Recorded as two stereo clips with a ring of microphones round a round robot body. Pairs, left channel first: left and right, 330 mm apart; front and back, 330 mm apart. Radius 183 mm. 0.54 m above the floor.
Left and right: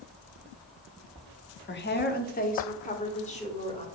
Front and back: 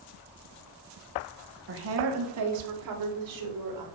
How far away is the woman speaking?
About 1.0 m.